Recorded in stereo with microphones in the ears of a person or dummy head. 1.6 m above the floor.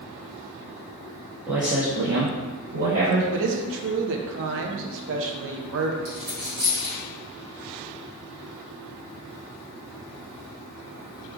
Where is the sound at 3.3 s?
70° right (ahead or behind), 0.7 m.